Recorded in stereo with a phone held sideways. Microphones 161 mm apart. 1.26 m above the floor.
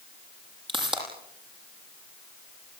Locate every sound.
0.7 s a pop: 30° right (ahead or behind), 8.5 m